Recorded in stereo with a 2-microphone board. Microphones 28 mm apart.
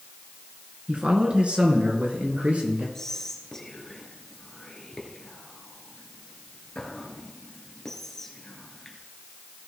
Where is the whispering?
15° left (ahead or behind), 2.5 m.